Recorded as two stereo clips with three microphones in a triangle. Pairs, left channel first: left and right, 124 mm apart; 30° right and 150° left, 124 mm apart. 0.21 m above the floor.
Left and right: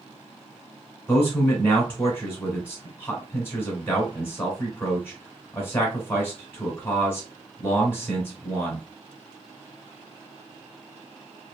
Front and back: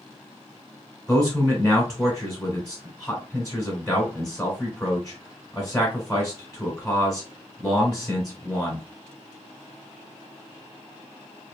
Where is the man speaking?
40° left, 1.4 m.